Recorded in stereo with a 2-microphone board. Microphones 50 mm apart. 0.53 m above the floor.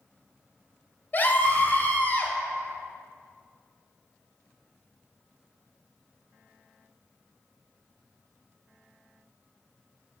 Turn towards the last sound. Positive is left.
turn(degrees=40)  # may be behind; listen again after turning